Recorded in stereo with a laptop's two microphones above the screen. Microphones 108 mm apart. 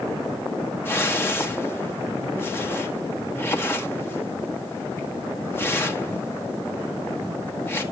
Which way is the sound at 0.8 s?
20° left (ahead or behind).